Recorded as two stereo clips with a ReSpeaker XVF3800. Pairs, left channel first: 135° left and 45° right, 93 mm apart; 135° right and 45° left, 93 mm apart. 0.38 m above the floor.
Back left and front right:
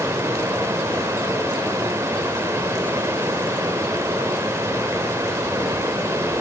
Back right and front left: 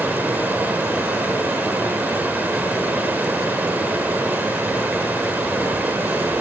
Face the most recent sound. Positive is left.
turn(degrees=-10)